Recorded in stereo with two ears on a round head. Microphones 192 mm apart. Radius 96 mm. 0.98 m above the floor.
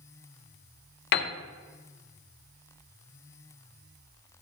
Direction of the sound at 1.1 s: 50° left (ahead or behind).